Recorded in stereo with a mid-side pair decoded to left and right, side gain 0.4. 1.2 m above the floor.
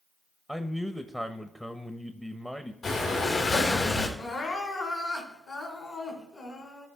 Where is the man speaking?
5° left, 0.9 m.